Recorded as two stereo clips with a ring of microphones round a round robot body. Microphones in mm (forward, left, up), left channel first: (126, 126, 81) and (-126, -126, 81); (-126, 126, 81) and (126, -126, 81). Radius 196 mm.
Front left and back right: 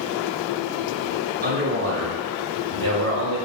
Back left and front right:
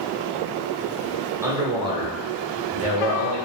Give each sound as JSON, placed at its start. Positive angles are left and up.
{"t": 1.4, "sound": "a man speaking", "azimuth_deg": -120, "distance_m": 0.9}